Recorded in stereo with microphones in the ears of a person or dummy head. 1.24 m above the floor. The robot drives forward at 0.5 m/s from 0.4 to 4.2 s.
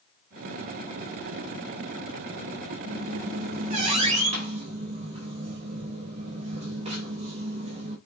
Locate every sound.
2.8 s a squeak: 45° right (ahead or behind), 3 m; by 8.0 s 40° right (ahead or behind), 3.5 m